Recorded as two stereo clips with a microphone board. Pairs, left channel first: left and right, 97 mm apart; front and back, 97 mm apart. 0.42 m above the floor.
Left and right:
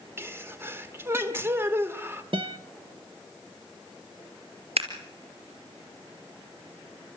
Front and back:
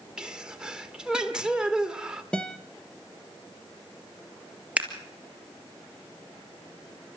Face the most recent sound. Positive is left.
turn(degrees=-100)